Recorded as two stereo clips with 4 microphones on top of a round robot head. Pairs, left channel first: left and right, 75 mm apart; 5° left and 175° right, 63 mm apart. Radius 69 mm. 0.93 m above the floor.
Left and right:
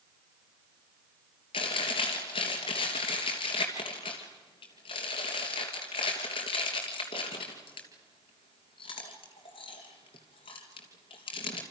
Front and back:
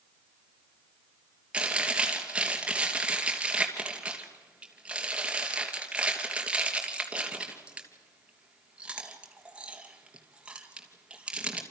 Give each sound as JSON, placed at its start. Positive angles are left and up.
{"t": 1.5, "sound": "chewing", "azimuth_deg": 110, "distance_m": 3.0}